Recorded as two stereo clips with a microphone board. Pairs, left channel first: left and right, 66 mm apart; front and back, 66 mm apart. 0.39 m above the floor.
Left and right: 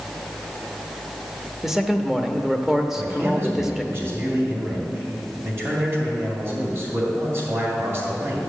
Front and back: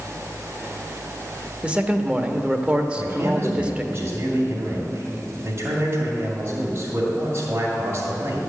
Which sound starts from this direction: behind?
A man speaking, at 1.6 s.